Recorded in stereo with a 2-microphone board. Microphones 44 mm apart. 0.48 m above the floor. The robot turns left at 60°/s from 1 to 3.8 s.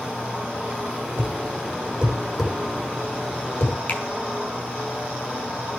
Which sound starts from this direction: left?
A finger snap, at 3.9 s.